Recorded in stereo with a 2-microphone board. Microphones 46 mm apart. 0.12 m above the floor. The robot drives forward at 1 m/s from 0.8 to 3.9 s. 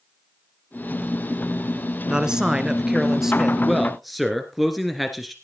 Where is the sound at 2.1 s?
15° right (ahead or behind), 1.1 m; by 3.6 s 10° right (ahead or behind), 2 m.